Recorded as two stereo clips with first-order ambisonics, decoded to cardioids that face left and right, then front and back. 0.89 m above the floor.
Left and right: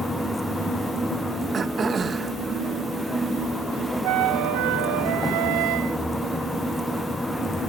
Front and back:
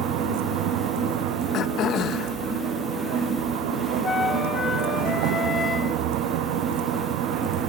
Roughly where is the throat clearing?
Ahead right.